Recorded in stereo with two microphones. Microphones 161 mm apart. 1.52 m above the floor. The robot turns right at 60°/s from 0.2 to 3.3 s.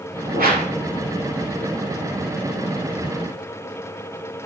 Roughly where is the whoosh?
Right.